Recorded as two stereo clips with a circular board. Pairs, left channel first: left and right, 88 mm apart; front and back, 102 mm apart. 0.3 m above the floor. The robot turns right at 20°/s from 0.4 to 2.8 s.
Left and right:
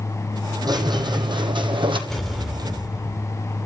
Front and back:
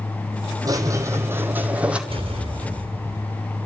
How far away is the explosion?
About 1.7 m.